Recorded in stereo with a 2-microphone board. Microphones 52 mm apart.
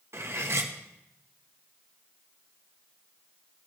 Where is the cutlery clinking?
55° right (ahead or behind), 0.8 m.